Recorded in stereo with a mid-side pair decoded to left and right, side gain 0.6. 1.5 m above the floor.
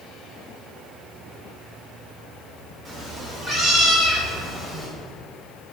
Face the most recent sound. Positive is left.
turn(degrees=-25)